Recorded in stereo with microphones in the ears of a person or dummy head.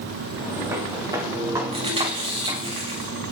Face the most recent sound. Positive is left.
turn(degrees=-35)  # may be behind; listen again after turning